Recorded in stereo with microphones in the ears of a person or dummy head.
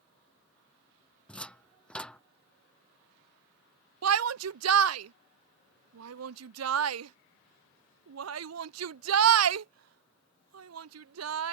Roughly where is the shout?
Right.